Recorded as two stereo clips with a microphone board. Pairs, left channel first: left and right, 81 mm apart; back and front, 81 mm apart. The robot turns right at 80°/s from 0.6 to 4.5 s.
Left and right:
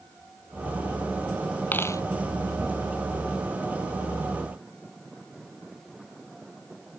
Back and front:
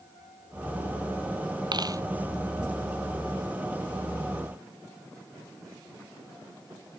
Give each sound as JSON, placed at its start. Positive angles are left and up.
{"t": 1.7, "sound": "a dropped coin", "azimuth_deg": 20}